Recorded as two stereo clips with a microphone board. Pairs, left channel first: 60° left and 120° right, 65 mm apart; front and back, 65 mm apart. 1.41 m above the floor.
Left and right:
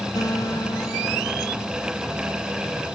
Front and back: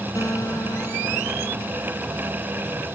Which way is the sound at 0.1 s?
40° left.